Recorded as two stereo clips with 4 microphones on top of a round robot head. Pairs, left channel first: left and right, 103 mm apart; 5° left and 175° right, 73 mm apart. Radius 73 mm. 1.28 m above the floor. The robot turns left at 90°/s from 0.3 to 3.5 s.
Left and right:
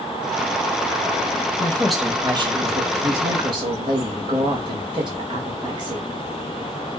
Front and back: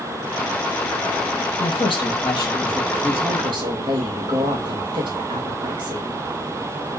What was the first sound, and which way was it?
A woman speaking, 30° left.